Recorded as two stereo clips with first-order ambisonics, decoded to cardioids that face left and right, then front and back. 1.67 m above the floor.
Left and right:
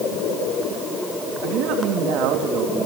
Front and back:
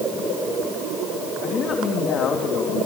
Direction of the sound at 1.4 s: 60° right.